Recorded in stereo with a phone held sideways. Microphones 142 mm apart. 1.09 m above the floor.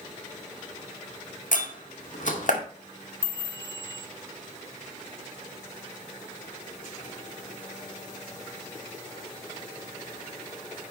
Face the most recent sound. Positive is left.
turn(degrees=-15)  # may be behind; listen again after turning